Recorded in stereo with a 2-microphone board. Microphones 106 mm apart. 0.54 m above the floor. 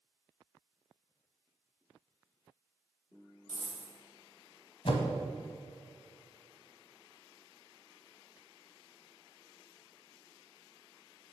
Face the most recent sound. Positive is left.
turn(degrees=60)  # may be behind; listen again after turning